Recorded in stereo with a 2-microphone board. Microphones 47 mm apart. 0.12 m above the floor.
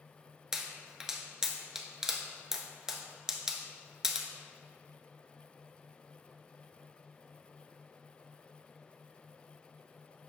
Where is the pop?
10° right (ahead or behind), 0.7 m.